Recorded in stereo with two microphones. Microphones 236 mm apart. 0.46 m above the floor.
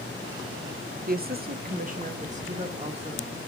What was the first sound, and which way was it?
A woman speaking, 40° right (ahead or behind).